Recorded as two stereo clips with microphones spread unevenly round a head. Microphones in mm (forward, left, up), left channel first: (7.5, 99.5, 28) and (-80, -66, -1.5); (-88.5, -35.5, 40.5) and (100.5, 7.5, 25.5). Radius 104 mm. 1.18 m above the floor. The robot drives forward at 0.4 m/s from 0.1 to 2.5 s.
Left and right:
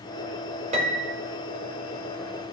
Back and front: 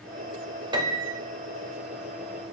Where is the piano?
55° right, 1.5 m; by 1.2 s 65° right, 1.4 m.